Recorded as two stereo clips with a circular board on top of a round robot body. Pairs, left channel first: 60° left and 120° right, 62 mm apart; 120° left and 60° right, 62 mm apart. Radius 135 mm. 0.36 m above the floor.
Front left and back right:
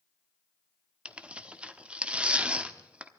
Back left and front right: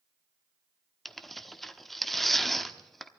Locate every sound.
1.1 s tearing paper: 155° right, 1.3 m